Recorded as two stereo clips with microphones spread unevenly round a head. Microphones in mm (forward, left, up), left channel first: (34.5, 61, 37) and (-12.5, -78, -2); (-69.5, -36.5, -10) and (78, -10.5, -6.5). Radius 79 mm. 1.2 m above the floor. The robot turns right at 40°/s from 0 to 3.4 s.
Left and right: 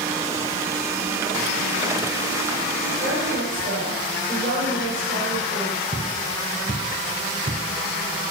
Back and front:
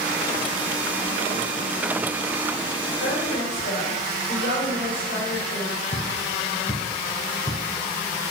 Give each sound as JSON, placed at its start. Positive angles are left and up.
{"t": 3.0, "sound": "a woman speaking", "azimuth_deg": -170, "distance_m": 3.5}
{"t": 5.9, "sound": "footsteps", "azimuth_deg": -170, "distance_m": 2.0}